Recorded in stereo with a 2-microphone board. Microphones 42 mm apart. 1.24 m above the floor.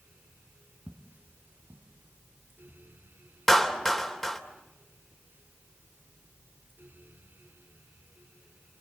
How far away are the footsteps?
About 2 m.